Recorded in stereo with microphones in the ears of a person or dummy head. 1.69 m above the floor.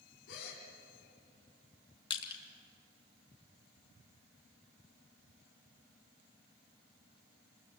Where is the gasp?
65° left (ahead or behind), 3 m.